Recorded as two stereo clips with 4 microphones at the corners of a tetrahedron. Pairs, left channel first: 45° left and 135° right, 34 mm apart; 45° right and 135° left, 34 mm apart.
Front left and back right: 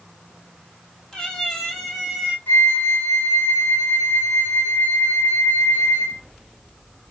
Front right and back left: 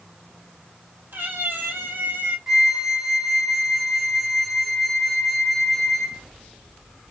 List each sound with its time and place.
1.1 s a cat meowing: 120° left, 1.4 m; by 2.4 s 145° left, 0.9 m
2.5 s a flute: 55° left, 1.1 m